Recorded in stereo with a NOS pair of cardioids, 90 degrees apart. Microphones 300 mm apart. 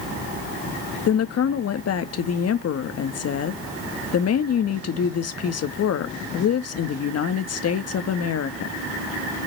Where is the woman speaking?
55° left, 1.6 m.